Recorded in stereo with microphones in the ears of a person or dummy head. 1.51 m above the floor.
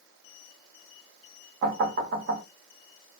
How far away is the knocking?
About 0.7 m.